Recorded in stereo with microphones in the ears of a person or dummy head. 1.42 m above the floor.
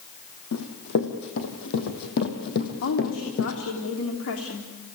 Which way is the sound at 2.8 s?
75° left (ahead or behind).